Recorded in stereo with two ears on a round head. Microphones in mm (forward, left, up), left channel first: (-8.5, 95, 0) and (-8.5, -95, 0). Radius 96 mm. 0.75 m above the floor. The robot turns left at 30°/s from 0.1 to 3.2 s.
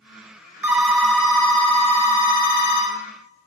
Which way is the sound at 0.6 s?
175° right.